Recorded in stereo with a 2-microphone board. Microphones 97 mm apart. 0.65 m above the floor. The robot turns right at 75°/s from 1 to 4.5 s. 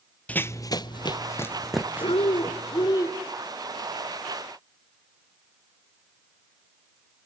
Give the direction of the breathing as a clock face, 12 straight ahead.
10 o'clock.